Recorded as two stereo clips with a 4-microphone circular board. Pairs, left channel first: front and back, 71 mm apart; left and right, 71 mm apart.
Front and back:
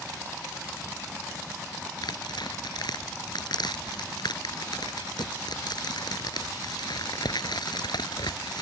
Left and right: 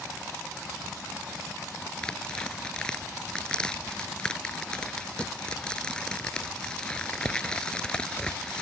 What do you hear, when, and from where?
2.0 s tearing paper: 10° left